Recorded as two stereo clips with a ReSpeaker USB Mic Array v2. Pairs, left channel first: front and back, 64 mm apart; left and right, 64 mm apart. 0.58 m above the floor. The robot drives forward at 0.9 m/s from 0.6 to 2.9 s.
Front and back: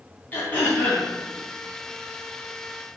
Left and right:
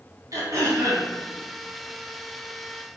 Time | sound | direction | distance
0.3 | throat clearing | 60° right | 4 m